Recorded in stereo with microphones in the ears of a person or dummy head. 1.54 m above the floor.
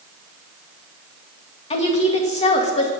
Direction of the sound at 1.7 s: 30° left (ahead or behind).